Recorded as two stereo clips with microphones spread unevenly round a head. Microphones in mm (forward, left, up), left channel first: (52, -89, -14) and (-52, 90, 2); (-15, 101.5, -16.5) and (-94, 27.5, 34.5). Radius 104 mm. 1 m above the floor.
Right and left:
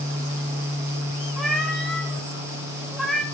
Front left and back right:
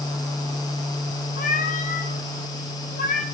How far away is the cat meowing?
About 1.4 m.